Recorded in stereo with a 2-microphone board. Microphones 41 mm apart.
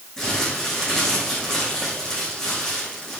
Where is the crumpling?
15° left (ahead or behind), 8 m.